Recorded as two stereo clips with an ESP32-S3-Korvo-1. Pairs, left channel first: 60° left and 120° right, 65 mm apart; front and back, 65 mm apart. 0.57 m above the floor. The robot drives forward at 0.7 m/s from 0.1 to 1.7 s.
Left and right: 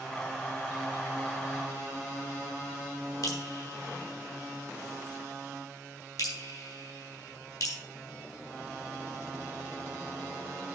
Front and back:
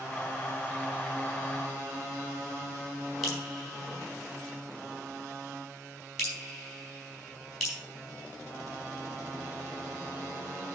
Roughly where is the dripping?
Left.